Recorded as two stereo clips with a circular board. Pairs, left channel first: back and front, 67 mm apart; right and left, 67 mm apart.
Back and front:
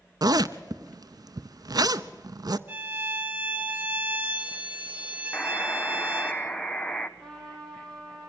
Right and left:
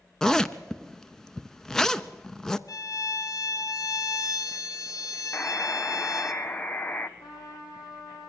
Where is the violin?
60° right, 1.4 m.